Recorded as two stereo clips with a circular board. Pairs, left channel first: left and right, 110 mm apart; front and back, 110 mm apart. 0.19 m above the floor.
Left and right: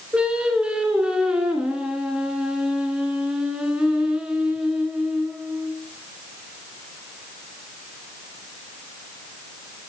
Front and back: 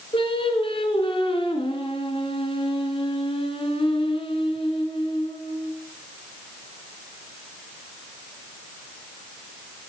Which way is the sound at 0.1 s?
10° right.